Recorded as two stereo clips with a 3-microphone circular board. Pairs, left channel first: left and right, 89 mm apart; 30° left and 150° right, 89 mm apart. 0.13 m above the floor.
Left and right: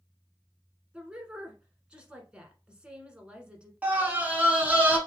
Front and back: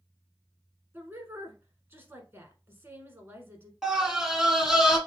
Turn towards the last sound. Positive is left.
turn(degrees=-75)